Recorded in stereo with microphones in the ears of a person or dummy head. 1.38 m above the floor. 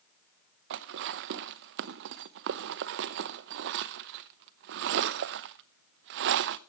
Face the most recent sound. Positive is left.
turn(degrees=-55)  # may be behind; listen again after turning